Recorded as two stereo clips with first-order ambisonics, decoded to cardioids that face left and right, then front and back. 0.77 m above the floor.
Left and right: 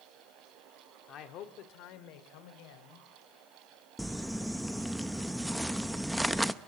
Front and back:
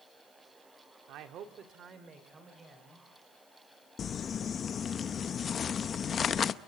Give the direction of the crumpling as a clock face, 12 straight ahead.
12 o'clock.